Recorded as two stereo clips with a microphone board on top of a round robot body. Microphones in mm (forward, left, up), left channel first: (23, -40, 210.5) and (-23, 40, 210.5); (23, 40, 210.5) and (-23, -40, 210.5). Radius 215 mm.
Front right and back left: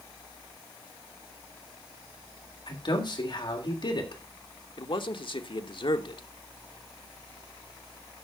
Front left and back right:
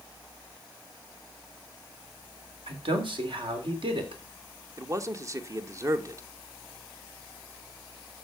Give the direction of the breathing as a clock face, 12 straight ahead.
No breathing in this recording.